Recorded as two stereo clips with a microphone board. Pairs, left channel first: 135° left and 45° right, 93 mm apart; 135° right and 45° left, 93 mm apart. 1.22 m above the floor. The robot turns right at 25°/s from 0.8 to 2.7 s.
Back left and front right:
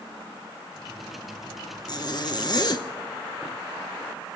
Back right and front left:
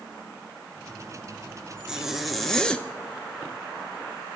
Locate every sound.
1.9 s a zipper: 125° left, 0.8 m; by 2.9 s 145° left, 0.8 m